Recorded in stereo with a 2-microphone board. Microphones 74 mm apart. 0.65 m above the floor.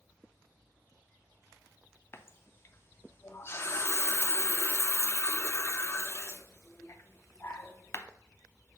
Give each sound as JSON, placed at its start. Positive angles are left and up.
{"t": 2.1, "sound": "a running tap", "side_deg": 35, "distance_m": 0.5}